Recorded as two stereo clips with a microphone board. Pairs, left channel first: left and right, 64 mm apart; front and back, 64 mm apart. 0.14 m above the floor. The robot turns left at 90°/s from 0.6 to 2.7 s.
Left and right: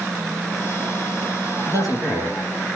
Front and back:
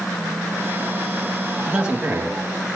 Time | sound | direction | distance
1.7 | a man speaking | 90° right | 3.5 m